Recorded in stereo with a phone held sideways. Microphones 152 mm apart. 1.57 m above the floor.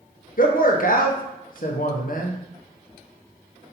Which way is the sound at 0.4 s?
60° left (ahead or behind).